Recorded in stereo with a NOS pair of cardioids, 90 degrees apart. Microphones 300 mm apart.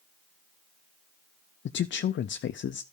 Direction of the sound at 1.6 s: 40° left.